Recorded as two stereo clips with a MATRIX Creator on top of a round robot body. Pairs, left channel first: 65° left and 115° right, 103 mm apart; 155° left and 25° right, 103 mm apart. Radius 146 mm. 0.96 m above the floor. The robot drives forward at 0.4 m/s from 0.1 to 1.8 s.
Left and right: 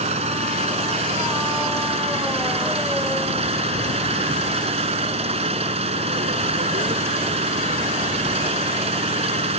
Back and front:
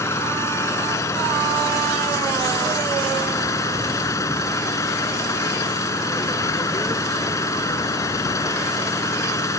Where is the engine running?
135° right; by 9.6 s 140° right.